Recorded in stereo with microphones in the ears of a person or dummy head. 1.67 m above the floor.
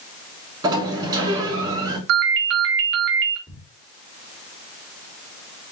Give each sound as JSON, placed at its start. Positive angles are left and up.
{"t": 0.6, "sound": "a sliding door", "side_deg": -25, "distance_m": 3.0}
{"t": 2.1, "sound": "a ringtone", "side_deg": -60, "distance_m": 1.5}
{"t": 3.5, "sound": "a thud", "side_deg": 25, "distance_m": 1.9}